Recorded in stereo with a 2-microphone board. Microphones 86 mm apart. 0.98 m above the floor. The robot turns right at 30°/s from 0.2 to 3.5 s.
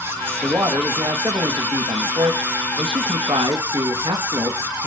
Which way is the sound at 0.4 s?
160° right.